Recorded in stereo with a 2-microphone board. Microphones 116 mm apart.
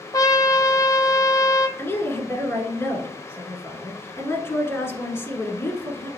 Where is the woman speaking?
20° left (ahead or behind), 1.2 m.